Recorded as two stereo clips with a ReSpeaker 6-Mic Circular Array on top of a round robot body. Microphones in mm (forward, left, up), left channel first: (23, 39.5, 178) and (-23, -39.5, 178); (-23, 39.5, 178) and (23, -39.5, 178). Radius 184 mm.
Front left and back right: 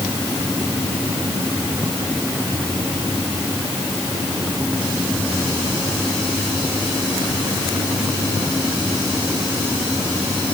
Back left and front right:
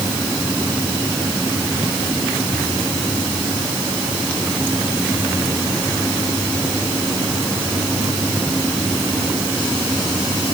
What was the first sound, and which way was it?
Only background noise.